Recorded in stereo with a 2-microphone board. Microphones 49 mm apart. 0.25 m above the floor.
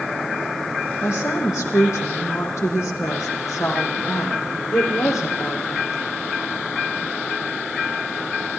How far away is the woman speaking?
About 8 m.